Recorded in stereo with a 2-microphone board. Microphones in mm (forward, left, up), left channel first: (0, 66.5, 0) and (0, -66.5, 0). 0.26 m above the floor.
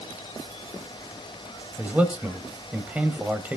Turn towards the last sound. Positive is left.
turn(degrees=-10)  # may be behind; listen again after turning